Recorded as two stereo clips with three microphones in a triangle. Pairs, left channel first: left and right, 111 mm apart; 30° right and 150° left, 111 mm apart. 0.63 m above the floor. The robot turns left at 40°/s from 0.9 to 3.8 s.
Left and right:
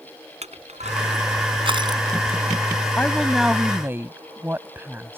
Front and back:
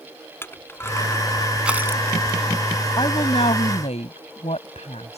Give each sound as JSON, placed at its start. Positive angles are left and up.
{"t": 0.4, "sound": "crushing", "azimuth_deg": -100}
{"t": 3.0, "sound": "a woman speaking", "azimuth_deg": 15}